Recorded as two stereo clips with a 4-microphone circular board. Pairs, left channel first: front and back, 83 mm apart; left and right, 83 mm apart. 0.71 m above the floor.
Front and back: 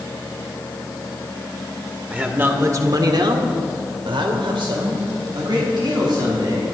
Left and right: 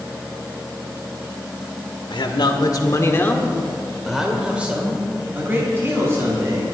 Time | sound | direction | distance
2.1 | a man speaking | 110° left | 2 m